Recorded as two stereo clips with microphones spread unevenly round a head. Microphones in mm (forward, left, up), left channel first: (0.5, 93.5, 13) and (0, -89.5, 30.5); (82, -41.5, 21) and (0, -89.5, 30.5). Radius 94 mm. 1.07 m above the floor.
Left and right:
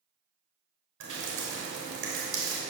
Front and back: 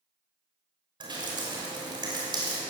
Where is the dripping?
115° right, 6 m.